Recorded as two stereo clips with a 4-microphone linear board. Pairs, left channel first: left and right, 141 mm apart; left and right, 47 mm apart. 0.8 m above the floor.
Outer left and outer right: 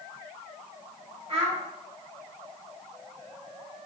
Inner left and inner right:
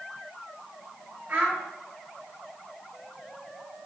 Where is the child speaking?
45° right (ahead or behind), 3.5 m.